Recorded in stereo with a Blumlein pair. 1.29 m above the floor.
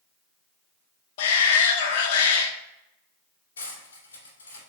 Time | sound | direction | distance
1.2 | a shout | 55° left | 1.1 m
3.6 | cutlery clinking | 65° left | 2 m